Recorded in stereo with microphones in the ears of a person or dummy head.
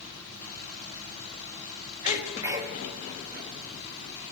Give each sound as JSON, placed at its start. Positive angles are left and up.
{"t": 2.0, "sound": "a sneeze", "side_deg": -20, "distance_m": 2.5}